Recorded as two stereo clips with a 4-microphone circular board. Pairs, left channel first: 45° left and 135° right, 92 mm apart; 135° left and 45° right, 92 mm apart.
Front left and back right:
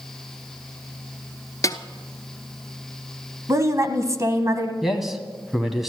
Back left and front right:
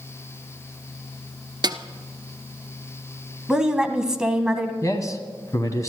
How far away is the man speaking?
About 1.5 m.